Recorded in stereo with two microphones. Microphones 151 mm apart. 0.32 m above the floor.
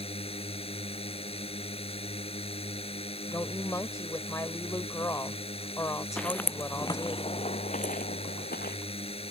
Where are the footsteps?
5° left (ahead or behind); by 8.8 s 80° left.